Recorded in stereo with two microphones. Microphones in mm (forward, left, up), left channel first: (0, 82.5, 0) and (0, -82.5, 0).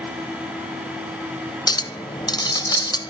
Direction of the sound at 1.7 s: 25° left (ahead or behind).